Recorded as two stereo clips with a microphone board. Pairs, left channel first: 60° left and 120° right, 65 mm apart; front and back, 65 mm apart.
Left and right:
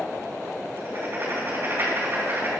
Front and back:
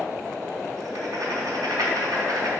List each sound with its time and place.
0.8 s writing: 170° right, 3.5 m